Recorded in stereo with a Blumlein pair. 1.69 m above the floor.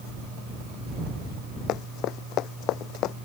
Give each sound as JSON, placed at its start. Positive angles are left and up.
{"t": 1.7, "sound": "running footsteps", "azimuth_deg": 35}